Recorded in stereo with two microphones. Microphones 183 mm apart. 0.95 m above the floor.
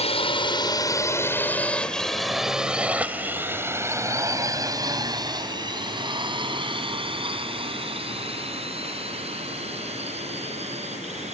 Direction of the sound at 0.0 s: 35° left (ahead or behind).